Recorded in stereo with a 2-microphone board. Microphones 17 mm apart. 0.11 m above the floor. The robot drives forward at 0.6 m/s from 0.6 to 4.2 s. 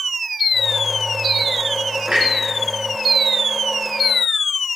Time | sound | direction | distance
2.1 | a clunk | 65° right (ahead or behind) | 4.5 m